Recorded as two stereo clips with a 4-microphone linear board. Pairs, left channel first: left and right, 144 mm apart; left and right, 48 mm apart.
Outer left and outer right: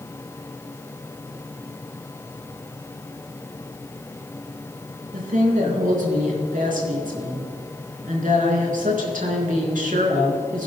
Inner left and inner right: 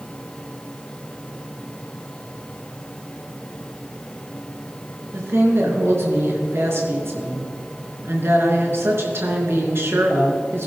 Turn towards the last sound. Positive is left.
turn(degrees=-65)  # may be behind; listen again after turning